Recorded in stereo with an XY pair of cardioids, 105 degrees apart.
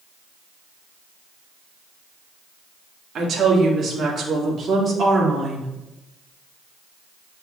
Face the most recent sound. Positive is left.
turn(degrees=-35)